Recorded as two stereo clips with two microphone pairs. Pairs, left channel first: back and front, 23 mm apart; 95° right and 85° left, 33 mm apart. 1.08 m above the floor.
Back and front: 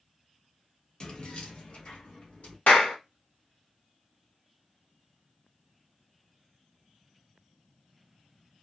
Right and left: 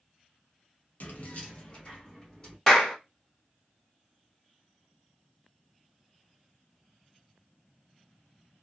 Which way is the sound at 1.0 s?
125° right.